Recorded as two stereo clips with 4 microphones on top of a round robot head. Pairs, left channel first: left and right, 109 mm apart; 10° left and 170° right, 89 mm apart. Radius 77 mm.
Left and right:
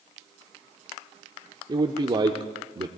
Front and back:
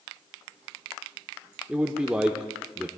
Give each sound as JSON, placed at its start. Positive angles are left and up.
{"t": 1.7, "sound": "a man speaking", "azimuth_deg": -95, "distance_m": 0.9}